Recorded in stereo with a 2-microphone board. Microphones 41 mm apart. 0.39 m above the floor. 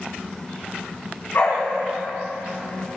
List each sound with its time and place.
1.3 s a dog barking: 55° left (ahead or behind), 8.5 m